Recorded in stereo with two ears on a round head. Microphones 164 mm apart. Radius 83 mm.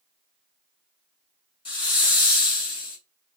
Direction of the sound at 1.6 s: 25° left (ahead or behind).